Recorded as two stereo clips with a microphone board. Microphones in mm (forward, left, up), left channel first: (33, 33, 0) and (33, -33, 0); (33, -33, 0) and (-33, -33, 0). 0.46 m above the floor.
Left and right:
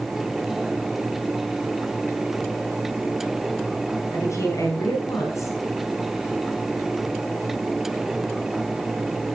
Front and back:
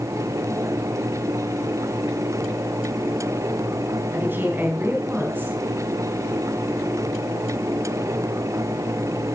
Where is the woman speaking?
125° left, 3.5 m.